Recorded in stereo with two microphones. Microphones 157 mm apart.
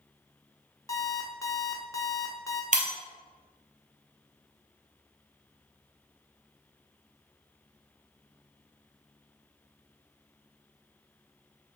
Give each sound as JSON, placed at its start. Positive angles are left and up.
{"t": 0.9, "sound": "an alarm clock", "side_deg": 20, "distance_m": 0.7}
{"t": 2.7, "sound": "breaking glass", "side_deg": -55, "distance_m": 1.1}